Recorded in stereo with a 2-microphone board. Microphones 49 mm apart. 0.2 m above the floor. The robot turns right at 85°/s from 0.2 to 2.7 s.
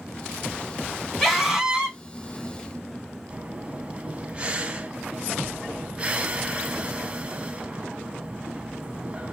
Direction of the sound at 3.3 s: 25° right (ahead or behind).